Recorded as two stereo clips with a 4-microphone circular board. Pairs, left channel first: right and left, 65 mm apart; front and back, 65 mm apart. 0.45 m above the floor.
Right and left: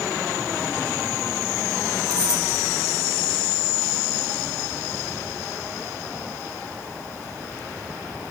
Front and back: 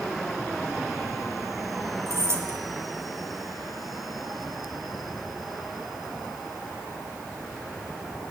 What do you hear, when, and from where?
2.1 s keys jangling: 130° right, 3 m